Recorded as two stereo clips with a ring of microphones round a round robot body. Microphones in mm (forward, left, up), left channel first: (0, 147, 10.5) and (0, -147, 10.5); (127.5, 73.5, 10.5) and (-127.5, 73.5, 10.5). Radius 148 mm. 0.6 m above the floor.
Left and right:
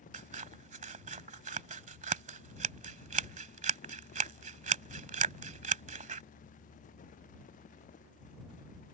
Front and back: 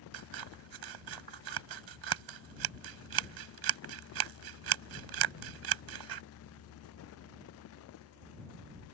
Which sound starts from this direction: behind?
Scissors, at 0.1 s.